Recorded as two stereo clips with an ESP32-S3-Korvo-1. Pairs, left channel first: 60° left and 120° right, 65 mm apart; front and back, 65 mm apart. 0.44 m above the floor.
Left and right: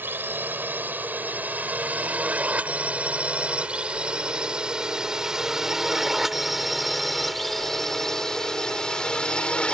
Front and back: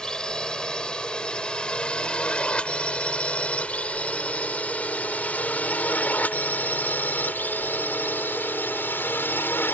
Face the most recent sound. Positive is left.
turn(degrees=0)